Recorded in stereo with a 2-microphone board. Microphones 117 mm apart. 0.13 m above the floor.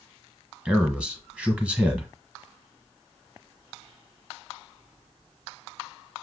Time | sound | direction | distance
0.7 | a man speaking | 10° right (ahead or behind) | 1.4 m